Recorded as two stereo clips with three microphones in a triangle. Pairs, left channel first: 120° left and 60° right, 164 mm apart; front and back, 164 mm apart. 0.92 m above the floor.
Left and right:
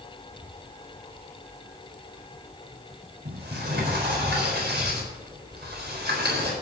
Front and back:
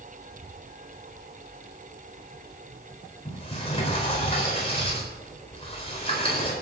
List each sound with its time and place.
3.2 s a sliding door: 55° right, 4 m